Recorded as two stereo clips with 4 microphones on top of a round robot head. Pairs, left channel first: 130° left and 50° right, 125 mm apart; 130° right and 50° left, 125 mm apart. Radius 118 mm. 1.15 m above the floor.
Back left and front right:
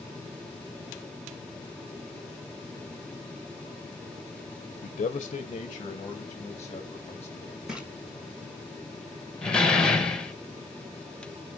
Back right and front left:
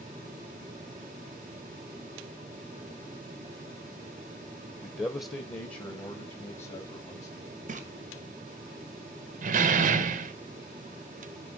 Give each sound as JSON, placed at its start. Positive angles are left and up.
{"t": 4.8, "sound": "a man speaking", "azimuth_deg": 150, "distance_m": 0.6}
{"t": 7.7, "sound": "a splash", "azimuth_deg": 30, "distance_m": 1.4}
{"t": 9.4, "sound": "a door slam", "azimuth_deg": 45, "distance_m": 0.9}